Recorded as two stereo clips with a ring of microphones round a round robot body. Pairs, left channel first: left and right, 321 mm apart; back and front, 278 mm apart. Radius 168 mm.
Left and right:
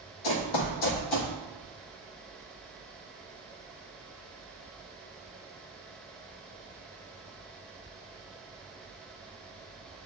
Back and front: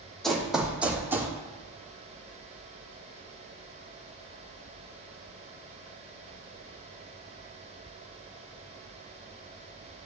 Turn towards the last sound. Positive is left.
turn(degrees=80)